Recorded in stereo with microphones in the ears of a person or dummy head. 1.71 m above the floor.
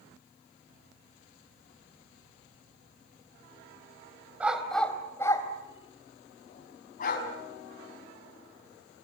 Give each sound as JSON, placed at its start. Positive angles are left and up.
{"t": 4.4, "sound": "a dog barking", "side_deg": -5, "distance_m": 3.0}